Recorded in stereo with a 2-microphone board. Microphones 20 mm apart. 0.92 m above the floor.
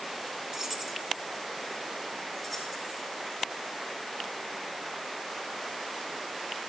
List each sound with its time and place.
0.5 s keys jangling: 30° right (ahead or behind), 0.7 m; by 3.0 s 10° right (ahead or behind), 3 m